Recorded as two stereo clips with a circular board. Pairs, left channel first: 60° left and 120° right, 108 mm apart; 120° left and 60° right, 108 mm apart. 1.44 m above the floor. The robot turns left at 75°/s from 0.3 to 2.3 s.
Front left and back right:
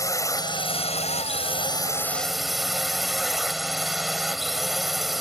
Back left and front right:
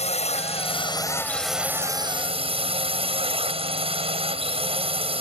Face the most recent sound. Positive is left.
turn(degrees=-30)